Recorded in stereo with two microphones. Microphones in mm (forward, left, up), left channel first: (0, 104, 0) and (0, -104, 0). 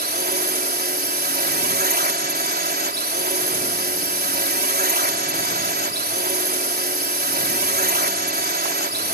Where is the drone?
50° right (ahead or behind).